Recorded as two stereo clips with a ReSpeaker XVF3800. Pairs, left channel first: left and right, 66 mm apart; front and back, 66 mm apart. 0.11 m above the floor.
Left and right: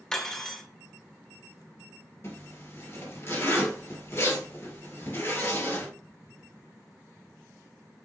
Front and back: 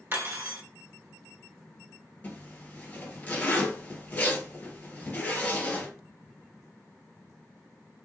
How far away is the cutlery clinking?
About 0.9 m.